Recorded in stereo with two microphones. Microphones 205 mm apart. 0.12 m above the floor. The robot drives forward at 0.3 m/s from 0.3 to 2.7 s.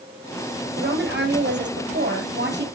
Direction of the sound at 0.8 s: 60° right (ahead or behind).